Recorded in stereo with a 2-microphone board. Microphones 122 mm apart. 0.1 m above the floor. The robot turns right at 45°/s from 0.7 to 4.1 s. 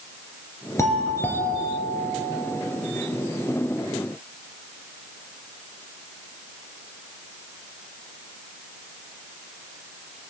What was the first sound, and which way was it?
A doorbell, 135° left.